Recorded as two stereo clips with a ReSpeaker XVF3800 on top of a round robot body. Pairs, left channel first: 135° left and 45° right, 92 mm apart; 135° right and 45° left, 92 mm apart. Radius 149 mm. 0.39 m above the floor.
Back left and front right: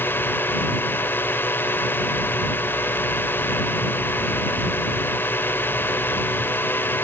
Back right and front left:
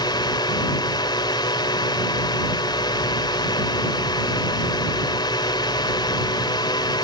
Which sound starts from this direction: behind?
A drone, at 0.0 s.